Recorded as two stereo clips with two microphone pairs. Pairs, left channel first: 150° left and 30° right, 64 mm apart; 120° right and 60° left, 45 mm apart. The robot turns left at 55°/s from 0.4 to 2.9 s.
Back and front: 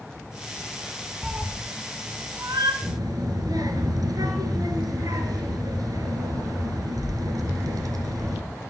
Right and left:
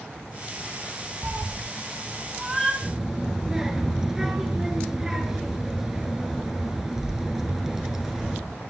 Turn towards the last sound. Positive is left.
turn(degrees=-20)